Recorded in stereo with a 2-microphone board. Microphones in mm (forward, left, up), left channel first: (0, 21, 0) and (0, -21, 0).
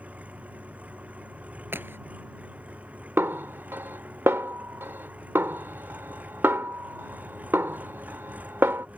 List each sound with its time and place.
0.0 s an engine running: 35° right (ahead or behind)
1.7 s a crack: 60° right (ahead or behind)
3.2 s a snare drum: 70° right (ahead or behind)